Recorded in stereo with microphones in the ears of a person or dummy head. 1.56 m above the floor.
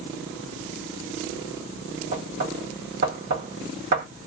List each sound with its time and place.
2.1 s knocking: 55° right (ahead or behind), 1.5 m